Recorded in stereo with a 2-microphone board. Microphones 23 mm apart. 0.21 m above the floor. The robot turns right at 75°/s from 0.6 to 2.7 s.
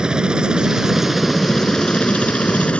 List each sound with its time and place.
0.0 s a helicopter: 35° right (ahead or behind); by 2.8 s 60° left (ahead or behind)